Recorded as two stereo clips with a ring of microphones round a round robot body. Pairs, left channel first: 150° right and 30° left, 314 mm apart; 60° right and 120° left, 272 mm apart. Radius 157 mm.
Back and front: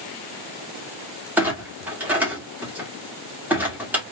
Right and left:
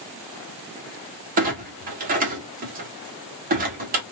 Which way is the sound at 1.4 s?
110° left.